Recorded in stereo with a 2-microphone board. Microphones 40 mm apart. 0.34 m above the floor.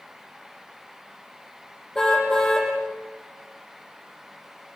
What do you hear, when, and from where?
1.9 s a car horn: 10° left (ahead or behind), 7.5 m